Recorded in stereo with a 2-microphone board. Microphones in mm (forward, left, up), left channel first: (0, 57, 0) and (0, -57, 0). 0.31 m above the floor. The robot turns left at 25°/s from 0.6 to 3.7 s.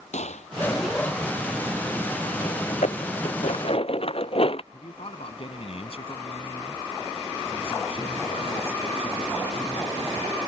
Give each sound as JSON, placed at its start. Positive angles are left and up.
{"t": 0.1, "sound": "a gunshot", "side_deg": 85}
{"t": 2.7, "sound": "dishes clattering", "side_deg": 80}
{"t": 4.7, "sound": "a man speaking", "side_deg": 55}